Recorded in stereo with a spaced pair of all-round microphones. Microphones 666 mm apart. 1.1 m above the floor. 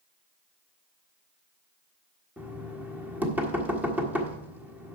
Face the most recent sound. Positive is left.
turn(degrees=-5)  # may be behind; listen again after turning